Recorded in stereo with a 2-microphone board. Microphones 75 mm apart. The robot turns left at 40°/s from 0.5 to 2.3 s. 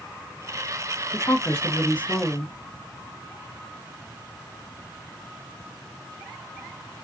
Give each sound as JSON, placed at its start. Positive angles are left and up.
{"t": 1.1, "sound": "a woman speaking", "azimuth_deg": 65, "distance_m": 1.0}